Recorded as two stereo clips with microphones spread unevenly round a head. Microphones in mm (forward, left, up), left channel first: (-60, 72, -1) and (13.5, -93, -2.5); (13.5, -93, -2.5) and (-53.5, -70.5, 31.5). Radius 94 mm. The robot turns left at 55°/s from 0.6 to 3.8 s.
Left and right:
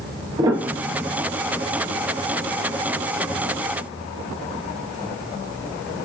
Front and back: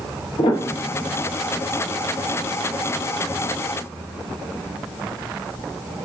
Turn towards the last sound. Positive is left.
turn(degrees=160)